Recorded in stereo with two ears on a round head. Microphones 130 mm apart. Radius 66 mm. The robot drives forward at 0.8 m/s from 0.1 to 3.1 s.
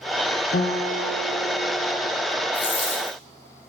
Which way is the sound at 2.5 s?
35° left (ahead or behind).